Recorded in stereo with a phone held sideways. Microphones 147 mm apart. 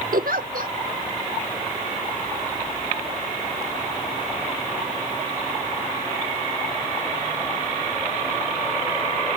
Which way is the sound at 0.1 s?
75° right (ahead or behind).